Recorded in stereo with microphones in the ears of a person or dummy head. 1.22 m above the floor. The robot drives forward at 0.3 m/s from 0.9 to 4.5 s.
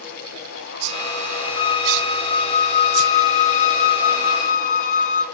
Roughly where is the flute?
Left.